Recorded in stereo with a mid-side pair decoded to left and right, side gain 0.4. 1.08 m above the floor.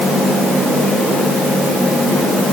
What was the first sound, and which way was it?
Only background noise.